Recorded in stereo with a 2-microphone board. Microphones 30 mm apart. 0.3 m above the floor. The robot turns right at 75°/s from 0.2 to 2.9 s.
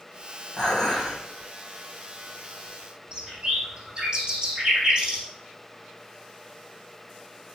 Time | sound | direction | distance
0.6 | dishes clattering | 160° left | 8 m
3.1 | a bird | 30° right (ahead or behind) | 5.5 m